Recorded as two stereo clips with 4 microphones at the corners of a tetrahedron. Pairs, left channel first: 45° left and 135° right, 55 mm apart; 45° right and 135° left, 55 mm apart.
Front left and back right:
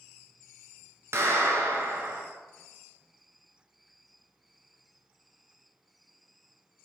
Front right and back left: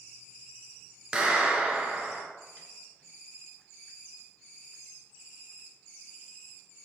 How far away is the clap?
About 1.7 m.